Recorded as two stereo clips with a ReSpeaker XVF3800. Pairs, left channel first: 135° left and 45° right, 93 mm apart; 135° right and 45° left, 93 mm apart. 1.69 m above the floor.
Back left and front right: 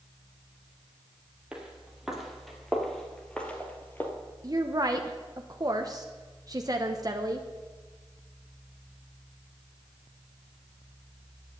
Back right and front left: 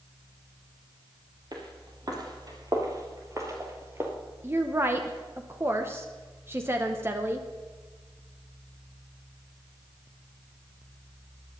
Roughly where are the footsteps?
Ahead left.